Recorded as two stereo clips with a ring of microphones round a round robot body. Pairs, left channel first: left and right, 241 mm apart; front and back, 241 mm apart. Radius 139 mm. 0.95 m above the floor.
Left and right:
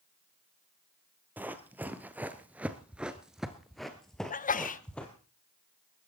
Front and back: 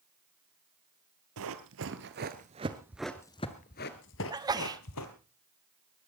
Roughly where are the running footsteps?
Behind.